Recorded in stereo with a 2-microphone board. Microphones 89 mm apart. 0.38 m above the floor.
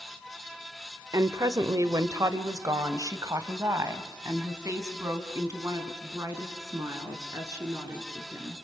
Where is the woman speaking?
40° right (ahead or behind), 1.0 m; by 8.5 s 35° right (ahead or behind), 4.5 m.